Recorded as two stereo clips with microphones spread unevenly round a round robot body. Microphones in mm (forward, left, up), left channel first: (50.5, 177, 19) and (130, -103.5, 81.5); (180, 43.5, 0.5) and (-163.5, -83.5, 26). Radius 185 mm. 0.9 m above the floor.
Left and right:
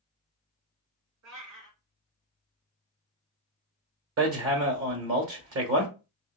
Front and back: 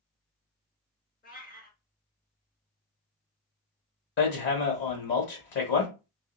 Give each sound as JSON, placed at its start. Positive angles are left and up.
{"t": 1.2, "sound": "a cat meowing", "azimuth_deg": -50, "distance_m": 3.5}
{"t": 4.2, "sound": "hammering", "azimuth_deg": -40, "distance_m": 1.4}